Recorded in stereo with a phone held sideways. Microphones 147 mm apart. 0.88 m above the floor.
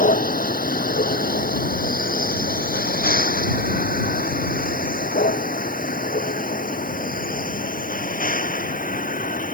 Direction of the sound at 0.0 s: 75° left (ahead or behind).